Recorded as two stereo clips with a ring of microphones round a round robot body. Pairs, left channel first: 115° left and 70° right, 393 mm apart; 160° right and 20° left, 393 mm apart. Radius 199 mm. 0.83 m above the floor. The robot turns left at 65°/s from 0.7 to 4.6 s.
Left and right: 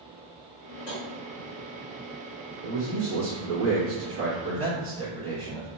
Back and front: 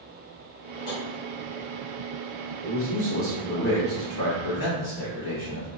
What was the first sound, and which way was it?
Tapping, 170° left.